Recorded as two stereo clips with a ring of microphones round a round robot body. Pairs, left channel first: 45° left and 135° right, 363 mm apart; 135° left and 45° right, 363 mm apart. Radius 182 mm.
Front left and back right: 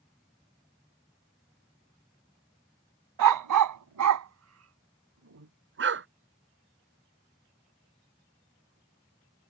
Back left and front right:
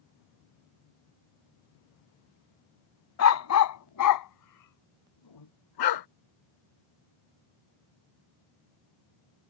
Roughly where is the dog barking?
Behind.